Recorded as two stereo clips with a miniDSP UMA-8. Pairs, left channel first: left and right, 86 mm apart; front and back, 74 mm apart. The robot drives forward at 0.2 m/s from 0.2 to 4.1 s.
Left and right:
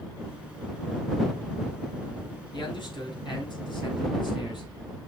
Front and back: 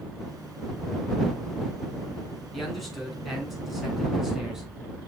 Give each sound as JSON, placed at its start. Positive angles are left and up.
{"t": 2.5, "sound": "a man speaking", "azimuth_deg": 90, "distance_m": 3.0}